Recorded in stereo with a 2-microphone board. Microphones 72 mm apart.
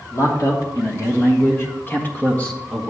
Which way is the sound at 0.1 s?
55° left (ahead or behind).